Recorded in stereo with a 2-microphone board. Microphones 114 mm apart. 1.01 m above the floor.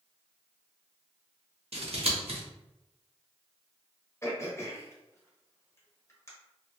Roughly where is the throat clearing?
Left.